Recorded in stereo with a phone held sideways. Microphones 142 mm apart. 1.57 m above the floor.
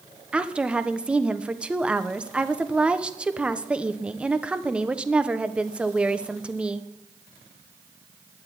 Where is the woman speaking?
10° right (ahead or behind), 1.0 m.